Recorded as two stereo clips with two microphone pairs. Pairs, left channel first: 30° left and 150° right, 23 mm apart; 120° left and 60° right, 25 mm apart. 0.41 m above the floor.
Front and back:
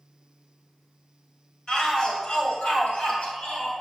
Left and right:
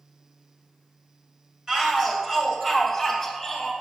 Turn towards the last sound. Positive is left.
turn(degrees=35)